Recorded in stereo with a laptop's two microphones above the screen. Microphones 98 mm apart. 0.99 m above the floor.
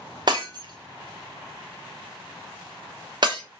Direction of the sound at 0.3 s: 50° right (ahead or behind).